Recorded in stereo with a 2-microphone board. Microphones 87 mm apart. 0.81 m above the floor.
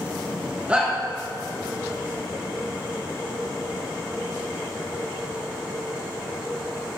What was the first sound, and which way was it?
A shout, 15° right (ahead or behind).